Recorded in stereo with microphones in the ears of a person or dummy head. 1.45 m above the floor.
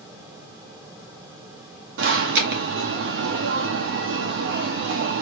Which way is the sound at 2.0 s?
60° right (ahead or behind).